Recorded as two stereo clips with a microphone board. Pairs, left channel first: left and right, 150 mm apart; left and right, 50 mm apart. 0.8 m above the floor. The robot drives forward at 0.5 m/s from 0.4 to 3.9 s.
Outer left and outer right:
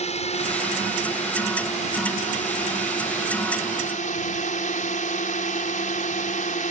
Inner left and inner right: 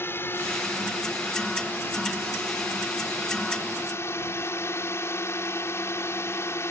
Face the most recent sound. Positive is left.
turn(degrees=60)  # may be behind; listen again after turning